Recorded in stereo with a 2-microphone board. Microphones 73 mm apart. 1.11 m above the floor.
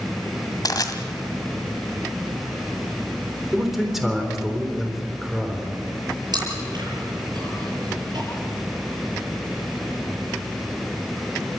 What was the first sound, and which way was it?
Crushing, 55° left (ahead or behind).